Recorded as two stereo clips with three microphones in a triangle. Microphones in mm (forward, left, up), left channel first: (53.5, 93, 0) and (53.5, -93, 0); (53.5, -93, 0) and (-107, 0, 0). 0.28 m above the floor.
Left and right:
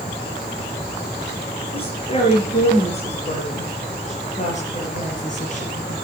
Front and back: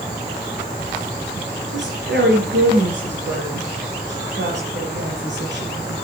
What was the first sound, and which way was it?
A woman speaking, 145° left.